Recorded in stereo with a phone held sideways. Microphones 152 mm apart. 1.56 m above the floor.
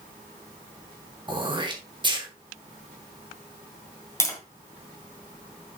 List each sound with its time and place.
1.3 s throat clearing: 30° right (ahead or behind), 1.5 m
4.2 s tapping: 20° left (ahead or behind), 2.5 m